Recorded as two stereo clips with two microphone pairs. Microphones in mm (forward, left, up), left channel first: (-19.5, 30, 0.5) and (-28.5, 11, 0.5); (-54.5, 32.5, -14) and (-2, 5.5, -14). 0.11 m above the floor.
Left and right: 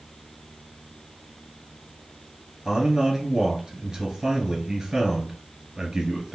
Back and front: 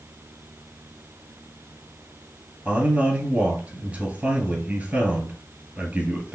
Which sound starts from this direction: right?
A man speaking, at 2.6 s.